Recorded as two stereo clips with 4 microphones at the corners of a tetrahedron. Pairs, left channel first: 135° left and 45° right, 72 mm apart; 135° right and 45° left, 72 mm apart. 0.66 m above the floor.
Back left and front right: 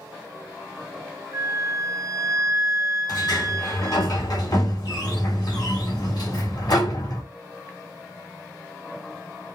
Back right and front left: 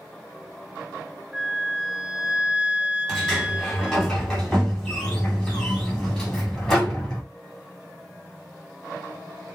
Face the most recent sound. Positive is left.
turn(degrees=140)